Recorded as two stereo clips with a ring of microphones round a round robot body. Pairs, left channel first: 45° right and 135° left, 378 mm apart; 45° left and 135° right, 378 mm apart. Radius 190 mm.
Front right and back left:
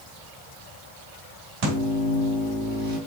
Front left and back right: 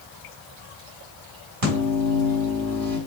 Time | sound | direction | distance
1.6 | a microwave | straight behind | 3.5 m